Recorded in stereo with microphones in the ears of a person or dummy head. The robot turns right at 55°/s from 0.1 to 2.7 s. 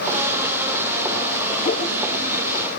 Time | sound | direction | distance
1.6 | a whoosh | 35° left (ahead or behind) | 3 m